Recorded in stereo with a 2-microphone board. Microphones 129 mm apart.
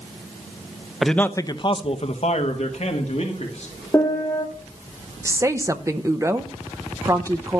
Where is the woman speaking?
25° right (ahead or behind), 0.6 m.